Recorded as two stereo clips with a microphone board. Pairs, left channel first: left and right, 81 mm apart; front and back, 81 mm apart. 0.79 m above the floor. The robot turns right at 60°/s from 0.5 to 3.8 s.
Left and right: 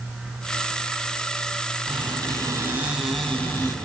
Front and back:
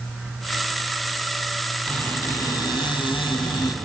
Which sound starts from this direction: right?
A squeak, at 1.9 s.